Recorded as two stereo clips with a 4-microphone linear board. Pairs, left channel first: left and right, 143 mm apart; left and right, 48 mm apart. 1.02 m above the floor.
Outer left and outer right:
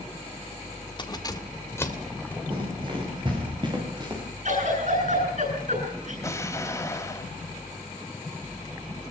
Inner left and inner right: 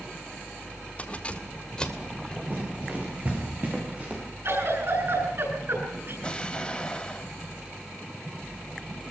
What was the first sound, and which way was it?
Keys jangling, 30° left (ahead or behind).